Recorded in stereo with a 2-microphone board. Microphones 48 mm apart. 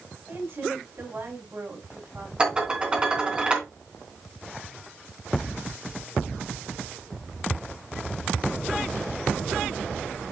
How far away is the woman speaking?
About 7 m.